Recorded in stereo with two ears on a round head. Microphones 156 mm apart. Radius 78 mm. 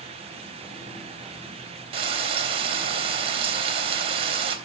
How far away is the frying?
About 3 m.